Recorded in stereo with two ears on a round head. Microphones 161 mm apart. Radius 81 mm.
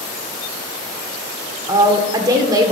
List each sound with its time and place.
1.7 s a woman speaking: 20° right (ahead or behind), 1.5 m